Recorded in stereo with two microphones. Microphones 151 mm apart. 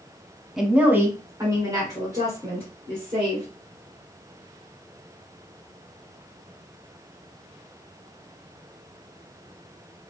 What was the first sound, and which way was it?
A woman speaking, centre (ahead or behind).